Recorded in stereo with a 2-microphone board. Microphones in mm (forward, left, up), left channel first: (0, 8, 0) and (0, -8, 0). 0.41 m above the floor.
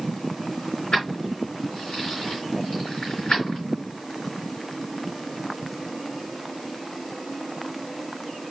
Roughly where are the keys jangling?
Left.